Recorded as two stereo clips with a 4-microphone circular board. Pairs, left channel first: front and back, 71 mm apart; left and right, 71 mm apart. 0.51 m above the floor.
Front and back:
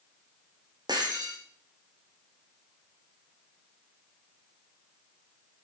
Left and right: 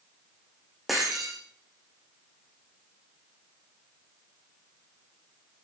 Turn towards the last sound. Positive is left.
turn(degrees=-175)